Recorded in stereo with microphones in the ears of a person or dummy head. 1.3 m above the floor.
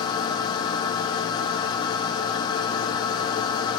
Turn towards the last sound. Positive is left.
turn(degrees=30)  # may be behind; listen again after turning